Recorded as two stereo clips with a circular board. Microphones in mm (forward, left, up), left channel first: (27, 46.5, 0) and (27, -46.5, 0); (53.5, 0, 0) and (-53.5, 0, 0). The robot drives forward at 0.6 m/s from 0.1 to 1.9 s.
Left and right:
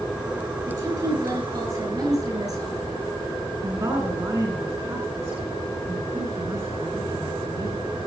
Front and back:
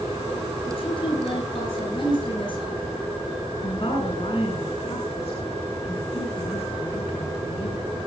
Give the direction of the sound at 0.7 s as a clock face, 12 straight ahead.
1 o'clock.